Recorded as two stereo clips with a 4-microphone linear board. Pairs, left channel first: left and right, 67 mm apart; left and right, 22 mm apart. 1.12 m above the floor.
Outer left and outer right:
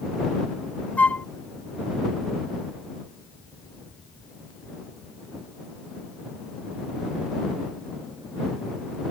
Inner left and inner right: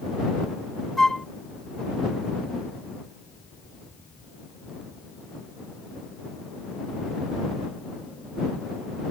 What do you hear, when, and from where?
1.0 s a flute: 20° left (ahead or behind)